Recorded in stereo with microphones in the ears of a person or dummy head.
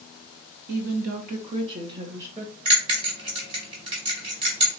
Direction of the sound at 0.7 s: 60° right (ahead or behind).